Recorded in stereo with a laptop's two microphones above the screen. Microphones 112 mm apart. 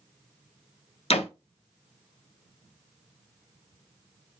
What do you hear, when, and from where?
1.1 s a door slam: 60° left (ahead or behind), 0.5 m